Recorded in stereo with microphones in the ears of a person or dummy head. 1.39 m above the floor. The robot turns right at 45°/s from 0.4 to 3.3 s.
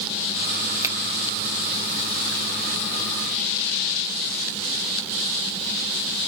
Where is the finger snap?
20° right (ahead or behind), 1.3 m; by 0.9 s 15° right (ahead or behind), 1.3 m.